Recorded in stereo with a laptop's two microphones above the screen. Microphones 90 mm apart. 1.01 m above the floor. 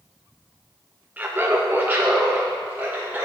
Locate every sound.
1.2 s laughter: 15° right (ahead or behind), 0.6 m